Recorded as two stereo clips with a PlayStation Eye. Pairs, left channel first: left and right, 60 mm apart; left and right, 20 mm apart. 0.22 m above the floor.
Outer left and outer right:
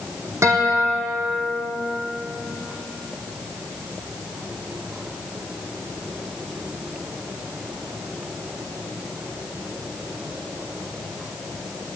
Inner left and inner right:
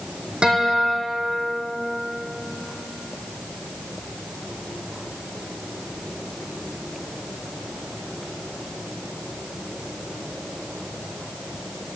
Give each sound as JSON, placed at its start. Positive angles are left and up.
{"t": 0.4, "sound": "a guitar", "side_deg": -50, "distance_m": 3.0}